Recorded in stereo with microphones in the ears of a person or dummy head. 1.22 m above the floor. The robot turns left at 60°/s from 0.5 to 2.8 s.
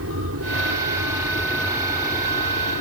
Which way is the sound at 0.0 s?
70° right (ahead or behind).